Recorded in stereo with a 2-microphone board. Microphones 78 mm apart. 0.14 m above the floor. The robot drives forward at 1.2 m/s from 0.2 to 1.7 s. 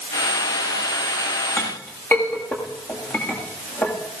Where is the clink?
30° left (ahead or behind), 7 m.